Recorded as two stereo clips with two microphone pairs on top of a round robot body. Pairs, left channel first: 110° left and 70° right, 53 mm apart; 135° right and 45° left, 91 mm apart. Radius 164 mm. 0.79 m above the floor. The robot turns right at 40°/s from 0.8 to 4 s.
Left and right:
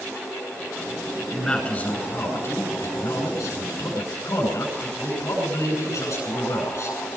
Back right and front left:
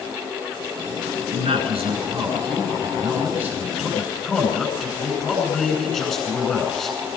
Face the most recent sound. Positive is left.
turn(degrees=135)